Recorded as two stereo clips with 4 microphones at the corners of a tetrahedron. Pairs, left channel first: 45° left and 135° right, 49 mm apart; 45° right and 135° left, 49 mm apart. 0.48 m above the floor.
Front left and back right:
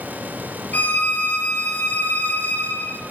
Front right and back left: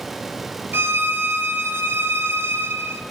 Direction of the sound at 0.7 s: 100° left.